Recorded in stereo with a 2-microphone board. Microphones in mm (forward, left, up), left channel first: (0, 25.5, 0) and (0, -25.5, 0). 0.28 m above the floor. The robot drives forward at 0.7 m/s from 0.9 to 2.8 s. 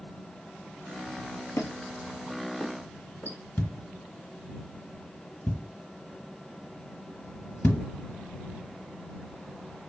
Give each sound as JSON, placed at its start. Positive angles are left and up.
{"t": 1.6, "sound": "a squeak", "side_deg": 70, "distance_m": 0.8}
{"t": 3.6, "sound": "a thud", "side_deg": 40, "distance_m": 0.9}